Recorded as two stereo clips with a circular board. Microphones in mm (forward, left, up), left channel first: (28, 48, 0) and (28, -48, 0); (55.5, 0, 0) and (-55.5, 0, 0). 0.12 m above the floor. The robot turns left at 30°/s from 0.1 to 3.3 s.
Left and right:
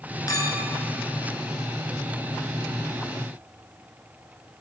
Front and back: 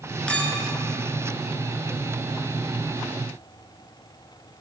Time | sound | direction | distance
0.3 | a clink | 75° left | 0.9 m